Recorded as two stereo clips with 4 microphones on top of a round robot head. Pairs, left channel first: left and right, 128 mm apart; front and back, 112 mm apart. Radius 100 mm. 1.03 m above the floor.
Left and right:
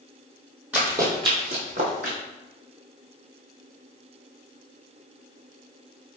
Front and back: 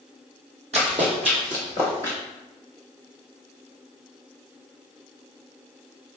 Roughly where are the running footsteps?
Behind.